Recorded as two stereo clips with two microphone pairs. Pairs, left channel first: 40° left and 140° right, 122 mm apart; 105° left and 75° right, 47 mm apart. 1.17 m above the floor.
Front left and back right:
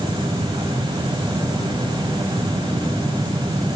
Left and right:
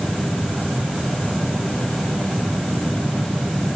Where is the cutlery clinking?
No cutlery clinking in this recording.